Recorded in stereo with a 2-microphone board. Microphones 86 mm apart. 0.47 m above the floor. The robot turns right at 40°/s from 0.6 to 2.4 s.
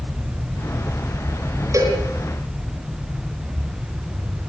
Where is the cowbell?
40° right (ahead or behind), 5 m; by 2.0 s 30° right (ahead or behind), 5 m.